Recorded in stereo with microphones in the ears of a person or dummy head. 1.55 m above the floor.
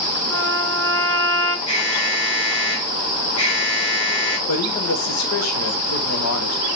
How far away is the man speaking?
About 1.1 m.